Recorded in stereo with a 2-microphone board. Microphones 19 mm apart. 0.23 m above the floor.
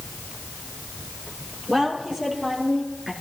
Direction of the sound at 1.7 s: 40° right (ahead or behind).